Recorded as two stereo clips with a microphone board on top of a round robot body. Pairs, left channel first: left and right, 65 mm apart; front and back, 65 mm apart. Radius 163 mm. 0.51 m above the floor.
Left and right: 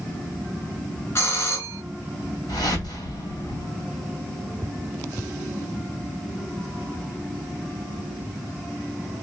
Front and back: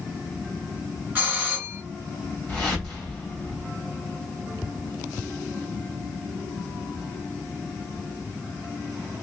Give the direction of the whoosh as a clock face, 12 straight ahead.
9 o'clock.